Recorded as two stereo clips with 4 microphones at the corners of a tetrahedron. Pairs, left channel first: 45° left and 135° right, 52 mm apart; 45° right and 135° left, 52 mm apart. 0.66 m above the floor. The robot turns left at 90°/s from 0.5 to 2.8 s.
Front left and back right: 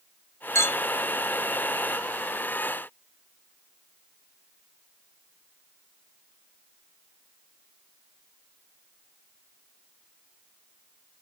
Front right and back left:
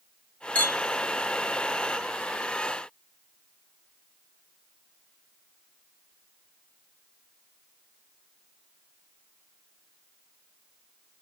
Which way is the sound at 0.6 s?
20° left.